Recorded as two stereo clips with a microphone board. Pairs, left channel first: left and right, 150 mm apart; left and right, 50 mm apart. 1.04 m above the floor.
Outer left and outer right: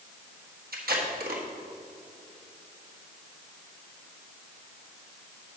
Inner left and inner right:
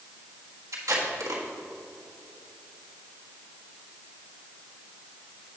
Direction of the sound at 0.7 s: 75° right (ahead or behind).